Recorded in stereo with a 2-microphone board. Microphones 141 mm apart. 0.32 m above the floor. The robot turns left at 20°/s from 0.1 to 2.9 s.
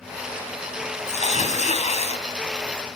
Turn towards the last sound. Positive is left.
turn(degrees=45)  # may be behind; listen again after turning